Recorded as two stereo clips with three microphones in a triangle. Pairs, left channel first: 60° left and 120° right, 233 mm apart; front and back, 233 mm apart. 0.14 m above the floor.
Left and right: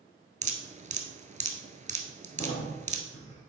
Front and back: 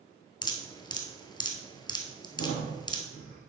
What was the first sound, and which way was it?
Dripping, 65° right.